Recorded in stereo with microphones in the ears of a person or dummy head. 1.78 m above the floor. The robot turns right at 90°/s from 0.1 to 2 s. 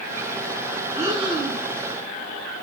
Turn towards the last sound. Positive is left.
turn(degrees=-75)